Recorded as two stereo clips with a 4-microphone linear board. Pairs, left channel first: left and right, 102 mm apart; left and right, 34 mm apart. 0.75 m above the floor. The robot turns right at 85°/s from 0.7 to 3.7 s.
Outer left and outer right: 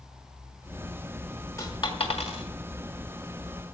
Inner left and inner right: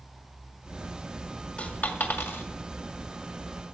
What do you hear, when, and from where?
1.6 s a dropped coin: 30° left (ahead or behind), 2 m; by 2.4 s 75° left (ahead or behind), 2 m